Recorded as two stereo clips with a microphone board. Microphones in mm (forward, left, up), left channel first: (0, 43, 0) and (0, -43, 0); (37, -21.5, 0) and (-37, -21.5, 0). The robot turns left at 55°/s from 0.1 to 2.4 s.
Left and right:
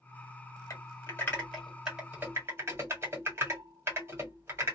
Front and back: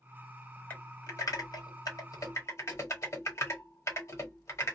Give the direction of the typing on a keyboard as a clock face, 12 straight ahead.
10 o'clock.